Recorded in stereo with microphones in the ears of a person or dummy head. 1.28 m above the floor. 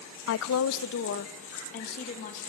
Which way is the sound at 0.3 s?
65° left (ahead or behind).